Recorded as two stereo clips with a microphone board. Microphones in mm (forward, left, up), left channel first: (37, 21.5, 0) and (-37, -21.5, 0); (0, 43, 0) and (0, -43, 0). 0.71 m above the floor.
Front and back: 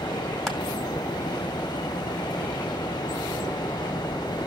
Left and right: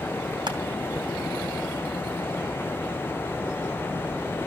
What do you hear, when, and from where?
0.5 s crushing: 60° right, 2.5 m